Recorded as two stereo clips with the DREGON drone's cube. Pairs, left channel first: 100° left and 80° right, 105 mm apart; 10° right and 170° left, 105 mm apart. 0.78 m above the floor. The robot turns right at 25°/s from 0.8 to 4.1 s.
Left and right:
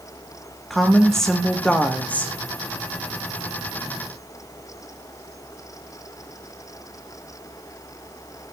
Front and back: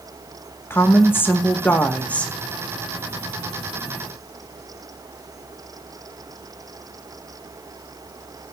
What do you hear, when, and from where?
0.7 s a woman speaking: 10° left, 0.9 m; by 2.3 s 50° left, 0.9 m